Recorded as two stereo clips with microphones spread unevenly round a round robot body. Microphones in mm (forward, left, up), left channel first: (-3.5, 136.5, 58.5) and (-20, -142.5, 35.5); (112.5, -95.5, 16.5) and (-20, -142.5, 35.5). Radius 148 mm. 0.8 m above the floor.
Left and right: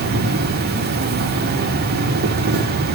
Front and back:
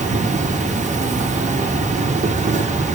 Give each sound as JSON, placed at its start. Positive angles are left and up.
{"t": 0.0, "sound": "an insect", "azimuth_deg": -135, "distance_m": 1.4}